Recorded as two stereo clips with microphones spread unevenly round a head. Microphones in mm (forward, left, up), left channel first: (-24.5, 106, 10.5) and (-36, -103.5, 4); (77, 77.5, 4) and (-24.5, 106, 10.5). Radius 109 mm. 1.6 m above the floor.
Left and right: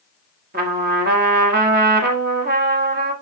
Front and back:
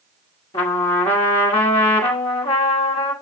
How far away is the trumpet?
About 1.3 m.